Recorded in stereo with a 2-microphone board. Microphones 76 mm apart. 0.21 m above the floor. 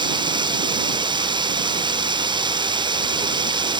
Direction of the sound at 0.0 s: 85° right.